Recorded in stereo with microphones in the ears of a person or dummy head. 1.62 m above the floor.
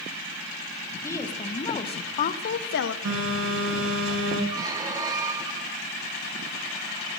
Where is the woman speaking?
20° left (ahead or behind), 1.8 m; by 3.0 s 70° left (ahead or behind), 1.0 m.